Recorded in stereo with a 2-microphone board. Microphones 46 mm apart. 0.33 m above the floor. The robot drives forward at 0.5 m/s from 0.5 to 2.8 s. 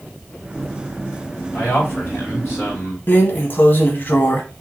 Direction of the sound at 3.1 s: 45° left (ahead or behind).